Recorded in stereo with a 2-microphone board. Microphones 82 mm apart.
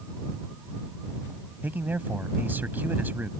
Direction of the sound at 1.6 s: 25° right (ahead or behind).